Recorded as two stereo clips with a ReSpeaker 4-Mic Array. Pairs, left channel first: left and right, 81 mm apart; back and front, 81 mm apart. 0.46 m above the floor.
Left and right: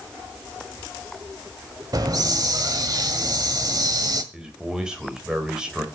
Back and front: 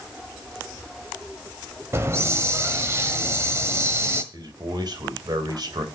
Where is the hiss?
55° right, 1.4 m.